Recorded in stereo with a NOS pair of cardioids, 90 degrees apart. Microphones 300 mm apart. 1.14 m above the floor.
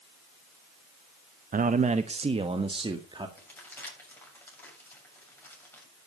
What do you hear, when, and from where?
1.5 s a man speaking: 30° right, 0.7 m; by 3.3 s 15° right, 2 m
3.4 s crumpling: 5° left, 7.5 m